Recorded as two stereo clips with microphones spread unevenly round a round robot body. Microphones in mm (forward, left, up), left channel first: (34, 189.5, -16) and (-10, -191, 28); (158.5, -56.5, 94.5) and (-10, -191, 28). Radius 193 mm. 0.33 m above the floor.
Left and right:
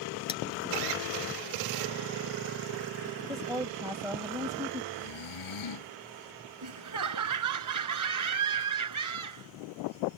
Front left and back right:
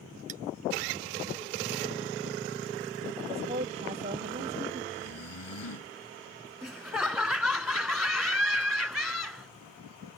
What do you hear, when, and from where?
0.3 s cutlery clinking: 160° left
3.3 s a woman speaking: straight behind
4.9 s snoring: 50° left
6.6 s laughter: 55° right